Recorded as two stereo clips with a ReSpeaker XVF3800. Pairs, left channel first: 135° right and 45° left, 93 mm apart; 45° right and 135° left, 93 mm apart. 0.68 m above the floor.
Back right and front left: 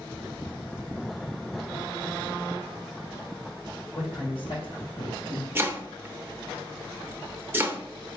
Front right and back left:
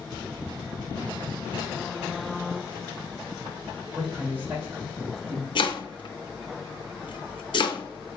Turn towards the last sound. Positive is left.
turn(degrees=-20)